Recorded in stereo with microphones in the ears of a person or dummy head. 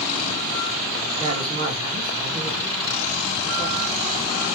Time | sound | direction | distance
1.2 | a woman speaking | 35° right (ahead or behind) | 2 m